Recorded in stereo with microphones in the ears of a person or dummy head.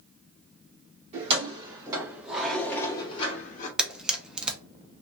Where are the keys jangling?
35° right (ahead or behind), 1.3 m; by 3.7 s 50° left (ahead or behind), 1.0 m.